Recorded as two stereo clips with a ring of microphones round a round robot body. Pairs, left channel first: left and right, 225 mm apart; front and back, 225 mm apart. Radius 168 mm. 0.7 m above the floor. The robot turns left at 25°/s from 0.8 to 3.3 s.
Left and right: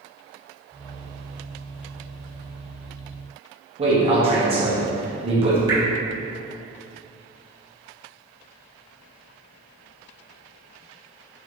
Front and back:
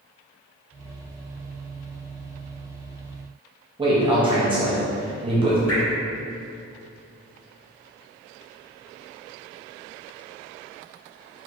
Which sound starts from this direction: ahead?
Dripping, at 5.7 s.